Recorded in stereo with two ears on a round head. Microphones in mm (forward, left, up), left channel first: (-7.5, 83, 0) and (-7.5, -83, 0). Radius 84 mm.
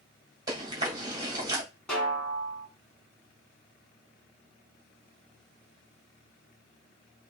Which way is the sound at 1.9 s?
5° left (ahead or behind).